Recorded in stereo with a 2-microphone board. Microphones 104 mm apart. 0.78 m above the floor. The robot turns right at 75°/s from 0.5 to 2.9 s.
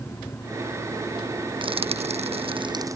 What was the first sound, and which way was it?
Frying, 50° right (ahead or behind).